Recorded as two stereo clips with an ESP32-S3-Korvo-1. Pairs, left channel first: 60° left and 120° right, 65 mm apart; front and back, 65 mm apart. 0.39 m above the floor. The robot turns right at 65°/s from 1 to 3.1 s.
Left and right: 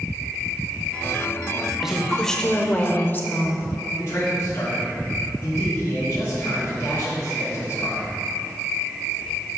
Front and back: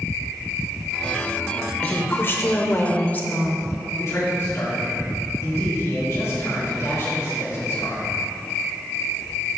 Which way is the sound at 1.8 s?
45° right.